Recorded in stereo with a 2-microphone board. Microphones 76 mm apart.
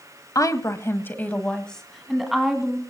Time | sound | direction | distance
0.3 | a woman speaking | 50° left (ahead or behind) | 1.6 m